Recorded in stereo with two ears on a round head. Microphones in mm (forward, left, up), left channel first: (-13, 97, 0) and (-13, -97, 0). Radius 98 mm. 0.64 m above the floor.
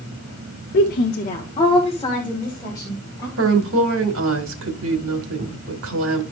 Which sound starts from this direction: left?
A woman speaking, at 0.7 s.